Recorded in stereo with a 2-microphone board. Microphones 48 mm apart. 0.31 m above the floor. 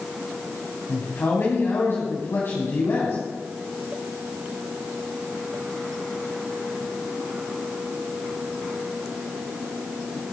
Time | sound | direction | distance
0.9 | a man speaking | 60° left (ahead or behind) | 3 m